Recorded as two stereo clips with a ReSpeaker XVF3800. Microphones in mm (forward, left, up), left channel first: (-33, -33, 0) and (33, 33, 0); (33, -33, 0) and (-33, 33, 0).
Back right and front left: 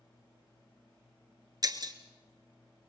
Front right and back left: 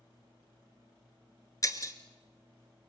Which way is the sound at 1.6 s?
5° left.